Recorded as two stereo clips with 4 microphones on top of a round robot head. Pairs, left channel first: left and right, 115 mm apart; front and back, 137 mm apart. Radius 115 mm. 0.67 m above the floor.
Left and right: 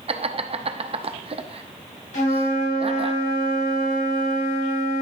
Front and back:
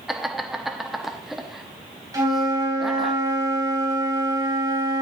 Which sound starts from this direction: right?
Laughter, at 0.1 s.